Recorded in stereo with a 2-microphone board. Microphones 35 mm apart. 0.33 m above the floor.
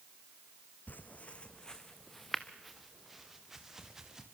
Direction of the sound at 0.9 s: 55° left (ahead or behind).